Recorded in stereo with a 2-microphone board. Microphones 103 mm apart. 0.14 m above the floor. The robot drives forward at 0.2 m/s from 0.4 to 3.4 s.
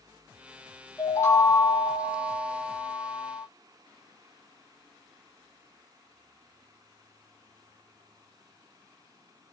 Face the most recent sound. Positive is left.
turn(degrees=20)  # may be behind; listen again after turning